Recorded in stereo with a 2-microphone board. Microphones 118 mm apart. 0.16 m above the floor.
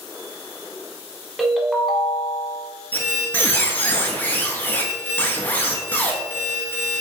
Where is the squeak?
15° left (ahead or behind), 0.6 m.